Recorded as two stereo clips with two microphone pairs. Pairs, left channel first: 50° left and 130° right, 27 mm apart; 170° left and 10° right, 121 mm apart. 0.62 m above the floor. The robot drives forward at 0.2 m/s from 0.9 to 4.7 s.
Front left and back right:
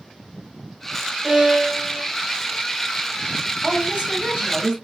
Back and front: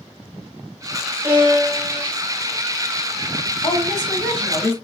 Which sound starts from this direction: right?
A violin, at 1.2 s.